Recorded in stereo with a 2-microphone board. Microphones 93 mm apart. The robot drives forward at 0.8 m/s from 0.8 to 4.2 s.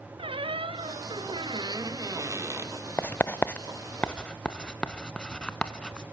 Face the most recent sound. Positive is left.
turn(degrees=10)  # may be behind; listen again after turning